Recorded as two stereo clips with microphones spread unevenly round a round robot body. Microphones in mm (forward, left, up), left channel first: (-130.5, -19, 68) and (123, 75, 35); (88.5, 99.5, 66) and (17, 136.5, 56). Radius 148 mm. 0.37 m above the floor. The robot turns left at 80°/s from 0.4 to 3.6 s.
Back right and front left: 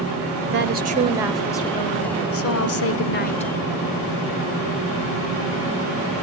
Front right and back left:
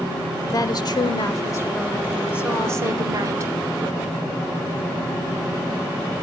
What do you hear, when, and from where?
0.5 s a woman speaking: 10° left, 1.9 m; by 3.5 s 125° left, 1.9 m